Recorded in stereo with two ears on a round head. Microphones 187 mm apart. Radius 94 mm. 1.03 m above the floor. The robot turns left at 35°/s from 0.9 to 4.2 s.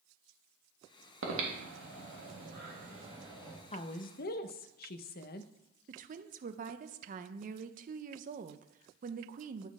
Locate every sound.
1.2 s breathing: 70° right (ahead or behind), 2.0 m; by 3.6 s 15° right (ahead or behind), 2.0 m
3.7 s a woman speaking: 30° left (ahead or behind), 0.5 m; by 5.5 s 45° left (ahead or behind), 0.5 m
5.9 s a woman speaking: 40° right (ahead or behind), 0.6 m